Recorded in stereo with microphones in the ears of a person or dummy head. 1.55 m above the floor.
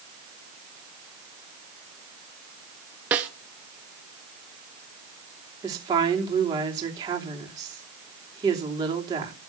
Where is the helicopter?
I don't hear a helicopter.